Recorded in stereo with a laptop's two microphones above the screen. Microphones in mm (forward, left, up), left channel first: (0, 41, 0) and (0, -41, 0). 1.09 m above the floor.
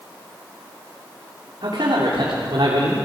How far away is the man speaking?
About 3.5 m.